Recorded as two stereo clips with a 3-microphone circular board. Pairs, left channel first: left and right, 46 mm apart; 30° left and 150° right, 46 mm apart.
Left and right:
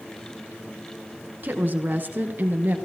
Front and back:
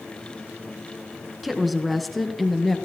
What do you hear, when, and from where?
1.4 s a woman speaking: 65° right, 1.8 m; by 2.8 s 55° right, 2.5 m